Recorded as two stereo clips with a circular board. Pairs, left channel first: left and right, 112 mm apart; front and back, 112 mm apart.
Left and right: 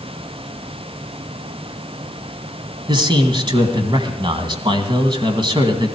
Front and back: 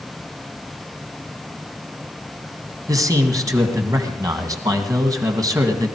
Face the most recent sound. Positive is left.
turn(degrees=-130)